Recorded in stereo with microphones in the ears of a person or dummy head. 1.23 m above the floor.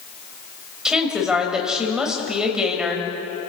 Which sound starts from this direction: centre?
A woman speaking, at 0.8 s.